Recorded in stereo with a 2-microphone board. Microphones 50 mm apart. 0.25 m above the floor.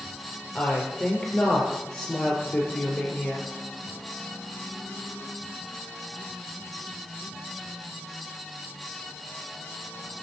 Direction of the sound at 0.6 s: 15° left (ahead or behind).